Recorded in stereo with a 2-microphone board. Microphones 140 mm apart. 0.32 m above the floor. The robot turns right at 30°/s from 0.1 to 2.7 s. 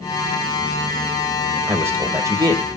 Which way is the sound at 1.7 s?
15° right (ahead or behind).